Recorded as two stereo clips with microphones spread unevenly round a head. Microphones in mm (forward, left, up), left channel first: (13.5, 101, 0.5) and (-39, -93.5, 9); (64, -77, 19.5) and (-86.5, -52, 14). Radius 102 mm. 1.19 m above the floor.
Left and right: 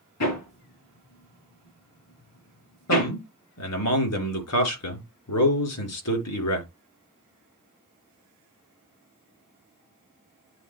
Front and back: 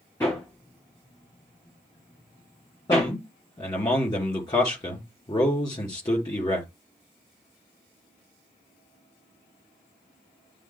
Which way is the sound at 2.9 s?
65° left.